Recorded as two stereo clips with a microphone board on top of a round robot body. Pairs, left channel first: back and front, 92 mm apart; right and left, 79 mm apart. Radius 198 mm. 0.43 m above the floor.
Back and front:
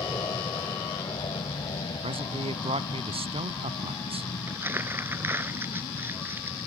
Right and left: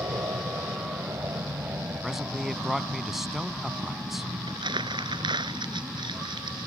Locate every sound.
0.0 s an aircraft: 135° left; by 6.7 s 170° left
2.0 s a man speaking: straight ahead
4.5 s crumpling: 65° left